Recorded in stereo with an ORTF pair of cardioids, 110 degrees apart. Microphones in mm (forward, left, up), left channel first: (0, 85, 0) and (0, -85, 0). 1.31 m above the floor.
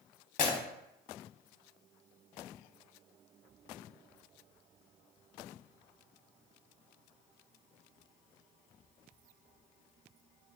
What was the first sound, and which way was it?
Breaking glass, 60° left.